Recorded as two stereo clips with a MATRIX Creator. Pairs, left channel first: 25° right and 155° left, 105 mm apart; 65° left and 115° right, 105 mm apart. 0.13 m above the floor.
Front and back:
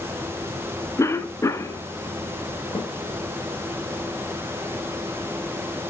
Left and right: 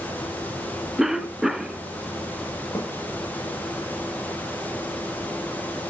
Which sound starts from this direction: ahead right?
A cough, at 1.0 s.